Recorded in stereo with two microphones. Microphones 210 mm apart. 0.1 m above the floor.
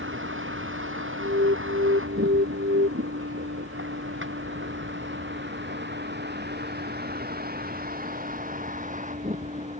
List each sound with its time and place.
0.0 s a vehicle: 75° right (ahead or behind); by 9.8 s 35° right (ahead or behind)
1.2 s an alarm: 65° right (ahead or behind)